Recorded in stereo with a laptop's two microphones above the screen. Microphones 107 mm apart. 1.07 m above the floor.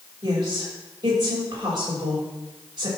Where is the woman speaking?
45° right (ahead or behind), 5.5 m.